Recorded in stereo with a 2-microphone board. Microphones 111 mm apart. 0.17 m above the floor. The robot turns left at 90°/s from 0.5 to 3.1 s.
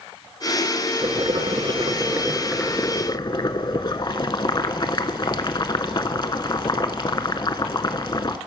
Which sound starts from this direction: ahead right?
Boiling, at 1.0 s.